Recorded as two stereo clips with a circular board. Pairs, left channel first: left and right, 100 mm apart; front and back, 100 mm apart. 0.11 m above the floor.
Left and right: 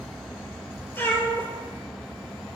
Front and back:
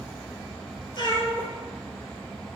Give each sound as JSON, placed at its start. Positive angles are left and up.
{"t": 0.9, "sound": "a cat meowing", "azimuth_deg": 25, "distance_m": 0.6}